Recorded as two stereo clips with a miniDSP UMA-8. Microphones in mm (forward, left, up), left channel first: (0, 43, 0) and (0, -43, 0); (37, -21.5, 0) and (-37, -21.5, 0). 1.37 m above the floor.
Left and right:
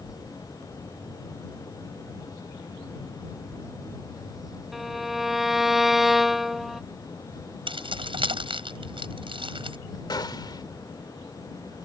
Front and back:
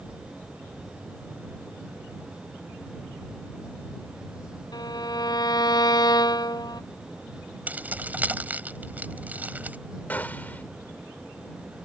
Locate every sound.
4.7 s a violin: straight ahead
7.7 s keys jangling: 110° right
10.1 s a gunshot: 65° left